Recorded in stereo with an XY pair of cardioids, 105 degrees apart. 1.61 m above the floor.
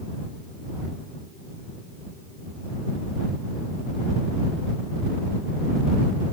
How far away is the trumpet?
I don't hear a trumpet.